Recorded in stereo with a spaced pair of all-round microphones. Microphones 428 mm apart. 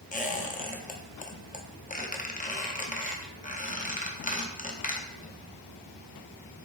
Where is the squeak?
20° left (ahead or behind), 0.5 m.